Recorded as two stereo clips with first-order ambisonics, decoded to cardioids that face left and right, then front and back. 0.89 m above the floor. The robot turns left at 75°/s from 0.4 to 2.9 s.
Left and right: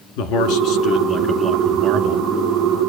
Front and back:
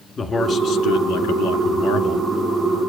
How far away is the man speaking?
About 2 m.